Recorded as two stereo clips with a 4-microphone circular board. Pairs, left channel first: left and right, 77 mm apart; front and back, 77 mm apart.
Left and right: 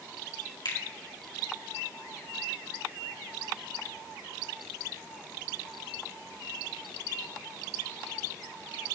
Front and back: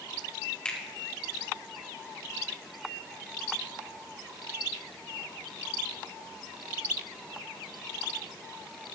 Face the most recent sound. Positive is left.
turn(degrees=75)